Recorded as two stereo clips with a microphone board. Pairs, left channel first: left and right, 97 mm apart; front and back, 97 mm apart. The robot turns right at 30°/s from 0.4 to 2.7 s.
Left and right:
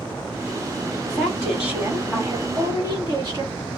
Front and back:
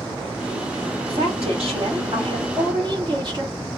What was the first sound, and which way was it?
A woman speaking, 170° left.